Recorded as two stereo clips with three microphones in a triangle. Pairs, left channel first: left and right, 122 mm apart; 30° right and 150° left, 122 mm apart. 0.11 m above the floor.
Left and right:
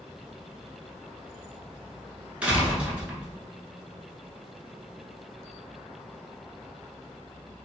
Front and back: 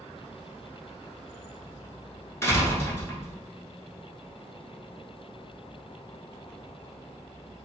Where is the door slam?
30° right, 0.8 m.